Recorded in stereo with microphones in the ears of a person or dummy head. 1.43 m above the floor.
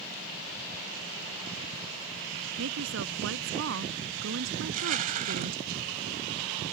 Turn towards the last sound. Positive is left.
turn(degrees=-45)  # may be behind; listen again after turning